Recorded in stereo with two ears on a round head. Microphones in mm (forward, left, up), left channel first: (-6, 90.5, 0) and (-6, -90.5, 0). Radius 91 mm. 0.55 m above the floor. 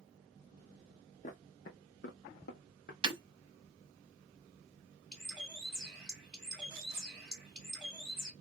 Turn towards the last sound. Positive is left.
turn(degrees=0)  # may be behind; listen again after turning